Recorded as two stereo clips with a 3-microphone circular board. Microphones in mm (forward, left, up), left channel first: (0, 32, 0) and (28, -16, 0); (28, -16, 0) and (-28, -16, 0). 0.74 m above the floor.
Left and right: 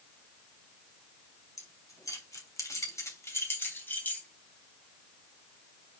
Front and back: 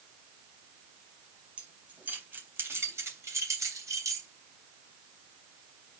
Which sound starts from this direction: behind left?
Keys jangling, at 1.6 s.